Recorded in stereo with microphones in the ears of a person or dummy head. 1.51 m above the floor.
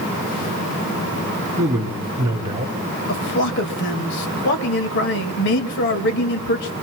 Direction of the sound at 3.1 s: 55° left (ahead or behind).